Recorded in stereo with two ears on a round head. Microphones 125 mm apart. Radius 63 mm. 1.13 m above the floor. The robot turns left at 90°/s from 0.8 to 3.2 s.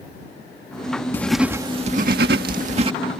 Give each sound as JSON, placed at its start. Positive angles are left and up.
{"t": 1.1, "sound": "writing", "azimuth_deg": 15}